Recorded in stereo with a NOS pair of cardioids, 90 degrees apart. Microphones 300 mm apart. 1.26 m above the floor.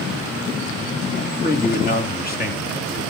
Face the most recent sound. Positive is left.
turn(degrees=30)